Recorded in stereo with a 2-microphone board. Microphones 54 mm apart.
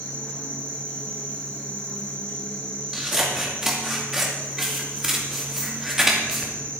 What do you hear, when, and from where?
0.0 s an insect: 30° left (ahead or behind), 4 m
2.9 s scissors: 10° right (ahead or behind), 2.5 m